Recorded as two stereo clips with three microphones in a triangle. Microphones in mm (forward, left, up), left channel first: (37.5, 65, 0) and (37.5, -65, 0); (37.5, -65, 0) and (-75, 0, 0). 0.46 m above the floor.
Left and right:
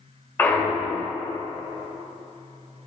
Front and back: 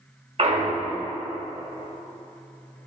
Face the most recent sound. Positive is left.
turn(degrees=160)